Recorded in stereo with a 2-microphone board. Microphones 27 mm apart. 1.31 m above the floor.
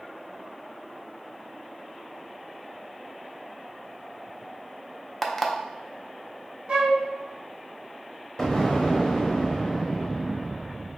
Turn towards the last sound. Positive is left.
turn(degrees=15)  # may be behind; listen again after turning